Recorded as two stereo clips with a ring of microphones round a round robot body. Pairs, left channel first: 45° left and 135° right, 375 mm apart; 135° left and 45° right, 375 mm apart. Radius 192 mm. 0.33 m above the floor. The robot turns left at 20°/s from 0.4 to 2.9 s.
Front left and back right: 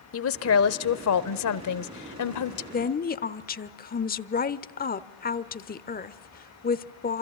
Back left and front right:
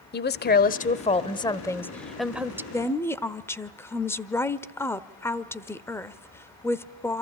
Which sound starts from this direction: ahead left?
A woman speaking, at 2.7 s.